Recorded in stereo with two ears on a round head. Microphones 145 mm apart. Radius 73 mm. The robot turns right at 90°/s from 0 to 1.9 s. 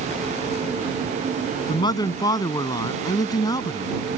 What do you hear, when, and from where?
1.7 s a man speaking: 45° left (ahead or behind); by 4.0 s 25° left (ahead or behind)